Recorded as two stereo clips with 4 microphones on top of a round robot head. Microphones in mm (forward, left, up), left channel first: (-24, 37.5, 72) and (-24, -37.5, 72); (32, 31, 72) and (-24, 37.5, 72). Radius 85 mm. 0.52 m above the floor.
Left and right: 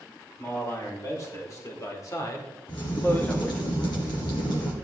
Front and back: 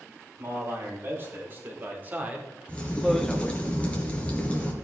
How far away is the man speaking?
About 4.5 m.